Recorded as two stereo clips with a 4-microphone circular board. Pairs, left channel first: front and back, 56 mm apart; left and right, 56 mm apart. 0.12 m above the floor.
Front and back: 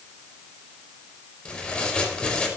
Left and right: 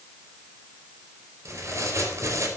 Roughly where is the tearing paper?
Right.